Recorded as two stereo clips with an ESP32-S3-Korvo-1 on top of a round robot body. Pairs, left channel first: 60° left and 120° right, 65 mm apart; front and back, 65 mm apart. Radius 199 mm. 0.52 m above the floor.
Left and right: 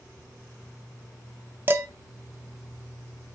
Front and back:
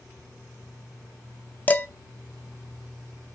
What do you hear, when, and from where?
1.7 s dishes clattering: 65° right, 0.5 m